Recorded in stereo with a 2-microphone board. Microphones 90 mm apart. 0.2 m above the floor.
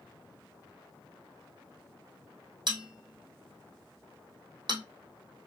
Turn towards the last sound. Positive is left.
turn(degrees=-55)  # may be behind; listen again after turning